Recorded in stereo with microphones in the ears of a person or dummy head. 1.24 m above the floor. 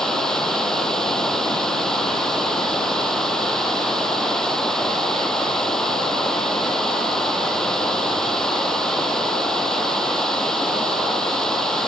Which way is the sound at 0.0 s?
Centre (ahead or behind).